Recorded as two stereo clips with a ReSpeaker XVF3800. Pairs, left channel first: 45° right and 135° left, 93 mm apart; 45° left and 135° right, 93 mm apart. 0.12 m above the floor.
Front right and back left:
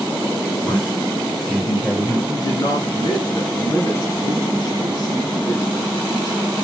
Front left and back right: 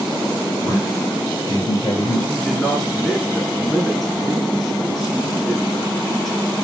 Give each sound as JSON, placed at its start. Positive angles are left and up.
{"t": 0.6, "sound": "a man speaking", "azimuth_deg": 5, "distance_m": 1.7}
{"t": 2.3, "sound": "a man speaking", "azimuth_deg": -45, "distance_m": 1.5}